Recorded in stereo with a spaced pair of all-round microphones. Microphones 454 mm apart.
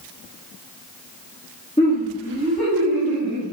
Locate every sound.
1.8 s laughter: 15° left (ahead or behind), 1.2 m; by 3.4 s 40° right (ahead or behind), 1.6 m